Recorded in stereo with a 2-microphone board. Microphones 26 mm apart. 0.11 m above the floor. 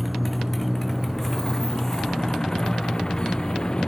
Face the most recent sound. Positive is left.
turn(degrees=35)  # may be behind; listen again after turning